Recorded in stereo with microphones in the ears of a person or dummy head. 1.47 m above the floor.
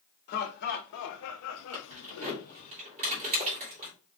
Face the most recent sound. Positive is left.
turn(degrees=-35)  # may be behind; listen again after turning